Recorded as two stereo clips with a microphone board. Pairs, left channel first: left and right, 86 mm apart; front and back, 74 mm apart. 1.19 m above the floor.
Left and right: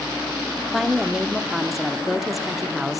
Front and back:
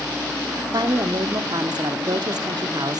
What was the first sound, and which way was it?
A woman speaking, straight behind.